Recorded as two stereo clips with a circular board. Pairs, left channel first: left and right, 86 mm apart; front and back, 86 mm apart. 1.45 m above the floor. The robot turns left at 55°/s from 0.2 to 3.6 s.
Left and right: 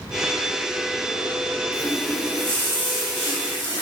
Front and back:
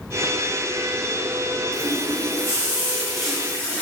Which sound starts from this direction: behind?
A running tap, at 1.7 s.